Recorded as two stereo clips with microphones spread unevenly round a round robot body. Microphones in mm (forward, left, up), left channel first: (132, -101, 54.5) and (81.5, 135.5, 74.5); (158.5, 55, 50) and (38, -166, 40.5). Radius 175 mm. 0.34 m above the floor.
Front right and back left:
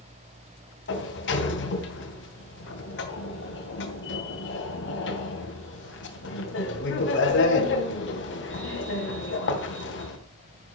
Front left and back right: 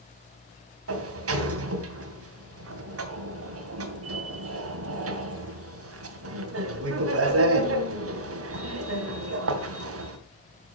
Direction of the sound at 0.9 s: 110° right.